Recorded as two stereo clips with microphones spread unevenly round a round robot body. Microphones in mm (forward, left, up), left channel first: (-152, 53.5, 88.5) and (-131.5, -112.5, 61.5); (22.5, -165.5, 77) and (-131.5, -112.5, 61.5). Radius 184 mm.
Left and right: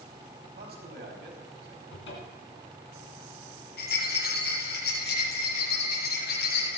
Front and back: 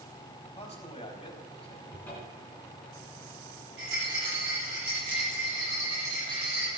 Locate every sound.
0.6 s a man speaking: 70° right, 4.5 m
1.9 s a cupboard door: 65° left, 3 m
3.8 s a rattle: 115° left, 6.5 m